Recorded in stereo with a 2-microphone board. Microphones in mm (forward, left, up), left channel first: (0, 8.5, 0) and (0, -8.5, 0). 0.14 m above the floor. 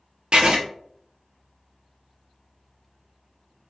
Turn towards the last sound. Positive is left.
turn(degrees=-70)  # may be behind; listen again after turning